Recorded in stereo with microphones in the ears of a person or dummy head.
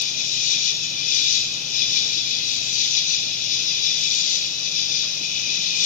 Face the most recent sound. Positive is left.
turn(degrees=55)  # may be behind; listen again after turning